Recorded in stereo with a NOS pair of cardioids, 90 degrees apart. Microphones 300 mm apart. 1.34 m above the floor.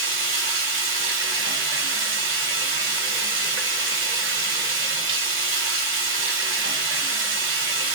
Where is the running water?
40° right, 1.1 m.